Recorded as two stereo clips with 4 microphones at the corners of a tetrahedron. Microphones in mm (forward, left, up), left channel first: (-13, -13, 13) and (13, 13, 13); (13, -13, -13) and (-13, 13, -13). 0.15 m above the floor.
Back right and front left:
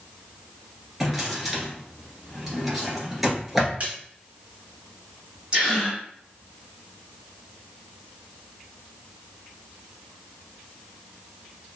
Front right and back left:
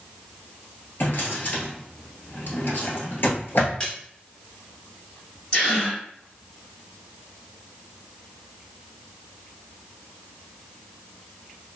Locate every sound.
1.0 s a drawer: 40° right, 1.2 m
3.8 s a splash: 10° left, 1.4 m
5.5 s a gasp: 5° right, 1.9 m